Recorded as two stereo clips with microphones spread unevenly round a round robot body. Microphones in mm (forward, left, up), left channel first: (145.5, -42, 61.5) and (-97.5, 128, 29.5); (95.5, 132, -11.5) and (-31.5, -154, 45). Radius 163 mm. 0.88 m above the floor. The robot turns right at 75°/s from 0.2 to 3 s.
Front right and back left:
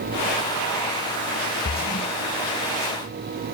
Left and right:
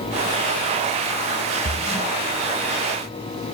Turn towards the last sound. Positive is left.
turn(degrees=55)